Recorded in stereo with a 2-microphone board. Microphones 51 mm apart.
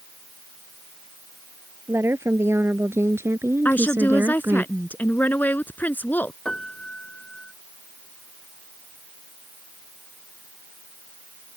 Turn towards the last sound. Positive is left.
turn(degrees=15)  # may be behind; listen again after turning